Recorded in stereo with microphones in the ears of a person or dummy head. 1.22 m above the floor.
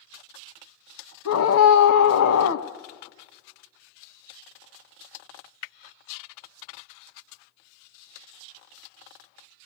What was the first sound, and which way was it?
A scream, 80° left.